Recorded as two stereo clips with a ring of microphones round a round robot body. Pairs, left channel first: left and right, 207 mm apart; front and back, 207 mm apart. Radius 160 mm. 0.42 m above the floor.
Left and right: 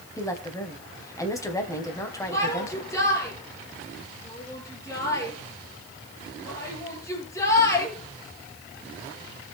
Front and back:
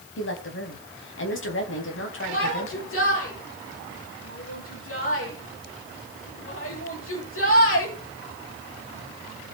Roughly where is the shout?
Ahead.